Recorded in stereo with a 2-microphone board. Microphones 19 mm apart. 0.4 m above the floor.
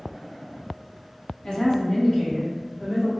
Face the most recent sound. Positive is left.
turn(degrees=0)  # may be behind; listen again after turning